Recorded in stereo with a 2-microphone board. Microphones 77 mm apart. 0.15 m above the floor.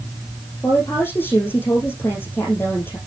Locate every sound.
0.6 s a woman speaking: 30° left (ahead or behind), 5.5 m